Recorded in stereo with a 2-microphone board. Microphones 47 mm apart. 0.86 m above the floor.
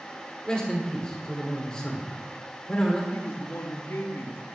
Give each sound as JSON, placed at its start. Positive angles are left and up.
{"t": 0.5, "sound": "a man speaking", "side_deg": 15, "distance_m": 2.0}
{"t": 3.1, "sound": "a man speaking", "side_deg": 60, "distance_m": 1.2}